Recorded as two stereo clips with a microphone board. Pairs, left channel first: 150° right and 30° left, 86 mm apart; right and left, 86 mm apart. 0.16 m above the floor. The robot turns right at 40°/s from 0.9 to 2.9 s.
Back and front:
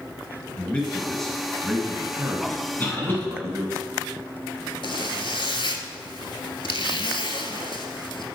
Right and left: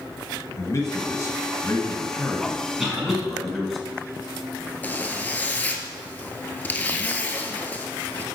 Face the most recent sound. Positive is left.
turn(degrees=-160)